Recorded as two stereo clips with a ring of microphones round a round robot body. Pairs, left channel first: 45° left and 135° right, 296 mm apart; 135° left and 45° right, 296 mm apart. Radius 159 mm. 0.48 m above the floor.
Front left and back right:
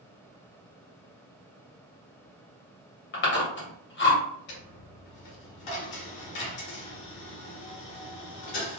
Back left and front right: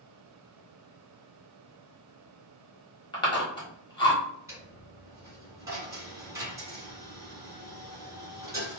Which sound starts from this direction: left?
Chewing, at 3.1 s.